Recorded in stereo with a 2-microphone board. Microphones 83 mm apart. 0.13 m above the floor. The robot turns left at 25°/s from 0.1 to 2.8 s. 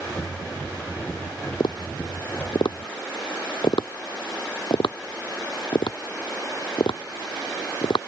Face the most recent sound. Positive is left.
turn(degrees=70)  # may be behind; listen again after turning